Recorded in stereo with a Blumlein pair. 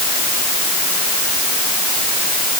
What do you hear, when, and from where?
Only background noise.